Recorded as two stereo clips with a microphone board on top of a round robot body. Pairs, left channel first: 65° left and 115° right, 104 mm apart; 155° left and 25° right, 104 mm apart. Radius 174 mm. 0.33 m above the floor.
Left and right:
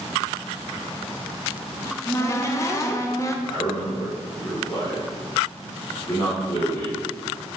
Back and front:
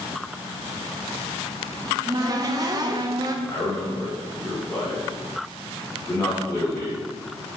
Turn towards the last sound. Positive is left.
turn(degrees=120)